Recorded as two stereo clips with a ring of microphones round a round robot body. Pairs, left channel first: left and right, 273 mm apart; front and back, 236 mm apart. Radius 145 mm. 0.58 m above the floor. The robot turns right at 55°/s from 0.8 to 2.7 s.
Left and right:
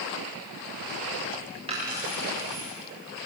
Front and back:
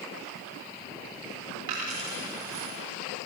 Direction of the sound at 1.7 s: 160° right.